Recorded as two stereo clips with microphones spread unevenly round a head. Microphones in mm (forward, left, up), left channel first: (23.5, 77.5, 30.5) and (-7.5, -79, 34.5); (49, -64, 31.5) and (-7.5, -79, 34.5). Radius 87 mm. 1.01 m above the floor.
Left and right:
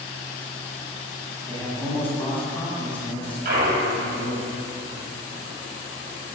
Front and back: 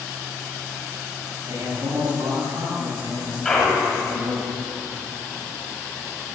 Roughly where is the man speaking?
Behind.